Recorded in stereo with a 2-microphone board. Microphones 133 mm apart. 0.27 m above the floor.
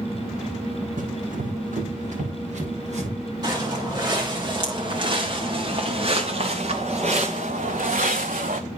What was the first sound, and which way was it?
Running footsteps, 80° right.